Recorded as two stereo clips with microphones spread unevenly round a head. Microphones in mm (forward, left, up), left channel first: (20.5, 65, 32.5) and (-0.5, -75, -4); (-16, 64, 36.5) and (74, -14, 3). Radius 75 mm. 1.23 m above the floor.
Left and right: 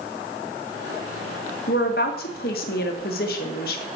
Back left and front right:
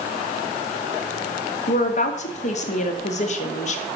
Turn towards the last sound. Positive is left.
turn(degrees=110)